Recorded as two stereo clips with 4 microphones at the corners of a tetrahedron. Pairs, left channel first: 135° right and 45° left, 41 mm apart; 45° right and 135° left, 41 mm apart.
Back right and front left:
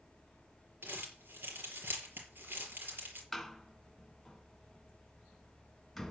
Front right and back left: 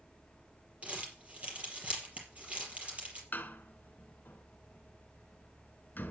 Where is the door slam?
45° right, 1.5 m.